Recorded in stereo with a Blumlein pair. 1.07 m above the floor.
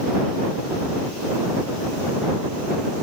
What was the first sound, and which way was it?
Only background noise.